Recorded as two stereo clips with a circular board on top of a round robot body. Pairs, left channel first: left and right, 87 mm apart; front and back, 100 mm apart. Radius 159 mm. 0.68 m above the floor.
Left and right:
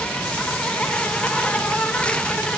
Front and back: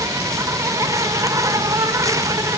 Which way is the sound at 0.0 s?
160° left.